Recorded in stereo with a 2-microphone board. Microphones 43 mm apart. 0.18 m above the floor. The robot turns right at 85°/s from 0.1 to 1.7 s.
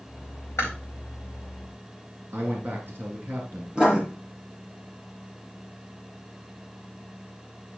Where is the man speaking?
55° right (ahead or behind), 2 m.